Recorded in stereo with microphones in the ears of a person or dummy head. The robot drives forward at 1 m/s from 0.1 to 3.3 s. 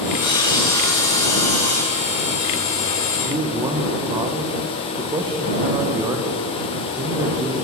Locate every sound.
0.2 s sawing: 25° left (ahead or behind), 2.5 m; by 2.1 s 15° left (ahead or behind), 4 m
3.2 s a man speaking: 30° right (ahead or behind), 1.3 m; by 7.5 s 25° right (ahead or behind), 1.4 m